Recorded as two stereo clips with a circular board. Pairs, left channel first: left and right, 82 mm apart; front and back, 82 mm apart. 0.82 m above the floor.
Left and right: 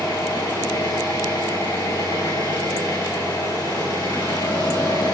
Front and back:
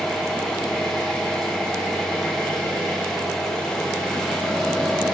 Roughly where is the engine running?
Left.